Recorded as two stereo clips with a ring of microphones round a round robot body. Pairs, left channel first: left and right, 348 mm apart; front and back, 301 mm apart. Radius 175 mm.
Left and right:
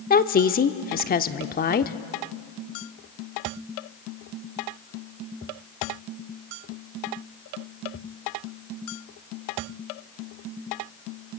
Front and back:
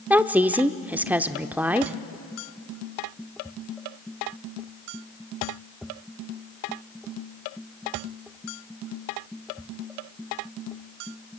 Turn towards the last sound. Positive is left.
turn(degrees=105)